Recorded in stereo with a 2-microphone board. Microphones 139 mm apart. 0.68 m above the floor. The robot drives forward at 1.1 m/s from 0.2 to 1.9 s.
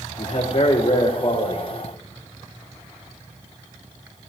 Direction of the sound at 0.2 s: 65° left (ahead or behind).